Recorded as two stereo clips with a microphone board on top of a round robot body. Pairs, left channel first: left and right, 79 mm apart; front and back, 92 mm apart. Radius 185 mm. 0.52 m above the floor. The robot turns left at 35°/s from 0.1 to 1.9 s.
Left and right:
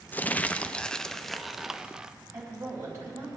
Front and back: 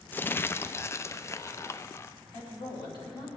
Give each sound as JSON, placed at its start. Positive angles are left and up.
{"t": 0.1, "sound": "crumpling", "azimuth_deg": 45, "distance_m": 0.6}
{"t": 2.3, "sound": "a woman speaking", "azimuth_deg": -35, "distance_m": 4.5}